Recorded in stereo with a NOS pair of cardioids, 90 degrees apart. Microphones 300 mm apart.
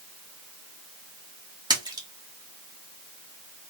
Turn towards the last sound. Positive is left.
turn(degrees=-15)